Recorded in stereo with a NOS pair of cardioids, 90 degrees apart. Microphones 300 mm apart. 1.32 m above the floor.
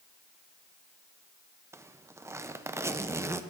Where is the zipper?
10° right, 0.6 m.